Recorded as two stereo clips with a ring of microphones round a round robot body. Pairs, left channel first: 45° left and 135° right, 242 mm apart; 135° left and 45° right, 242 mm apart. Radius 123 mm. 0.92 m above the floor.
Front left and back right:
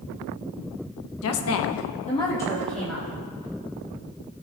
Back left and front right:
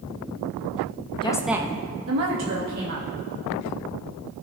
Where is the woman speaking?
65° left, 0.9 m; by 3.1 s 50° right, 2 m.